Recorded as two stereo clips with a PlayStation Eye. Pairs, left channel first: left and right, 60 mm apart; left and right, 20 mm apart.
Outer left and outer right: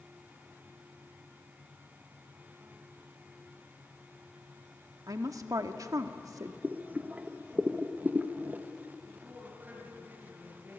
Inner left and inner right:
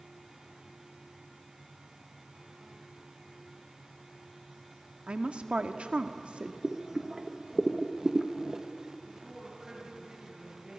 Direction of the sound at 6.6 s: 25° right (ahead or behind).